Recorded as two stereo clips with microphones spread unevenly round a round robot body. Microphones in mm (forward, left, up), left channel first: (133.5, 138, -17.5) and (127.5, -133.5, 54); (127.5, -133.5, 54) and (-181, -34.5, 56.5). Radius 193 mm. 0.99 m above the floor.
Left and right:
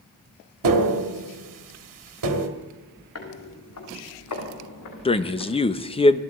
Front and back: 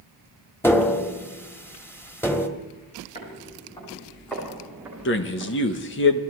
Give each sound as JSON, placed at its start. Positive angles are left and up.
{"t": 0.6, "sound": "tapping", "azimuth_deg": -100, "distance_m": 1.8}
{"t": 3.1, "sound": "footsteps", "azimuth_deg": 55, "distance_m": 5.5}
{"t": 5.0, "sound": "a man speaking", "azimuth_deg": 35, "distance_m": 1.2}